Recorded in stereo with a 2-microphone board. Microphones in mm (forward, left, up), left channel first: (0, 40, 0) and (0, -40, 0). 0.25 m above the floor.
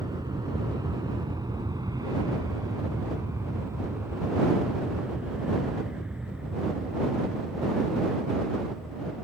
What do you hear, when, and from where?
0.0 s an aircraft: 55° right (ahead or behind); by 9.2 s centre (ahead or behind)